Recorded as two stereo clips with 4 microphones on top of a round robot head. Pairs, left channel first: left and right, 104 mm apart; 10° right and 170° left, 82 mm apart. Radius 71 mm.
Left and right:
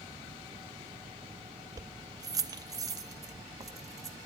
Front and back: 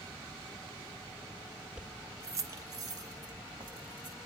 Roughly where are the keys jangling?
Behind right.